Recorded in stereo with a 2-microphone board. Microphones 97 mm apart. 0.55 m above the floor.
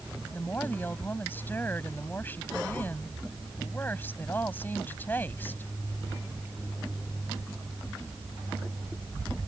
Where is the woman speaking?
20° left (ahead or behind).